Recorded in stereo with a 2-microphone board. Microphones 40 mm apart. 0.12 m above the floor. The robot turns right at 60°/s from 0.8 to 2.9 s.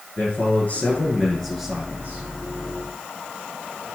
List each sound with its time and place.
0.2 s a man speaking: 135° left, 6.5 m; by 2.3 s 135° right, 6.5 m